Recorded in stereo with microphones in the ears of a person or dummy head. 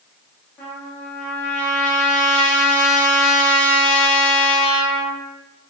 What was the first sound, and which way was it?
A trumpet, 10° left (ahead or behind).